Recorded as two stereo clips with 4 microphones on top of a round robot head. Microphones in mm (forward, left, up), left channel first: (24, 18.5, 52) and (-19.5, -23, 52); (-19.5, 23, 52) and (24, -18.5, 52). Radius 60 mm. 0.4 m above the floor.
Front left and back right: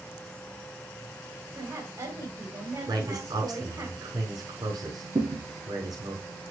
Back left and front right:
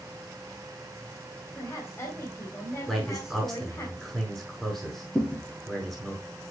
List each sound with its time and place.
1.6 s a woman speaking: 175° right, 3 m
2.9 s a man speaking: 140° right, 5.5 m
5.2 s a thud: 155° right, 4 m